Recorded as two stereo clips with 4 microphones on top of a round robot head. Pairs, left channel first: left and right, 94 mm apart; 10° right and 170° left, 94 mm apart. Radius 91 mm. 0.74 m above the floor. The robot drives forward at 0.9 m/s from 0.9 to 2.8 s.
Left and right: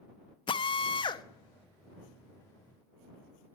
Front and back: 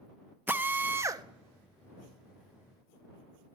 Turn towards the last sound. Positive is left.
turn(degrees=165)